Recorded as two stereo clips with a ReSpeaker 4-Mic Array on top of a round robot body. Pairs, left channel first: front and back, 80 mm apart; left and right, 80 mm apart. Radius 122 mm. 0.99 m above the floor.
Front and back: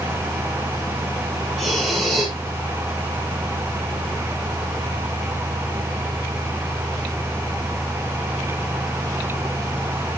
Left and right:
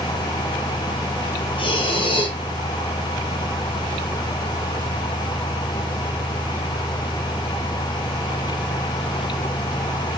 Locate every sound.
1.6 s breathing: 90° left, 3.5 m